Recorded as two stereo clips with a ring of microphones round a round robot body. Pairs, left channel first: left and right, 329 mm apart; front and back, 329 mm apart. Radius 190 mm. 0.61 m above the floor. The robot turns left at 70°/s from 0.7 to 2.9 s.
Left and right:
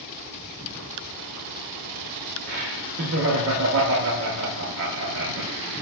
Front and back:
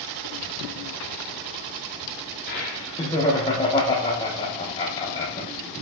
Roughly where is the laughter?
Ahead right.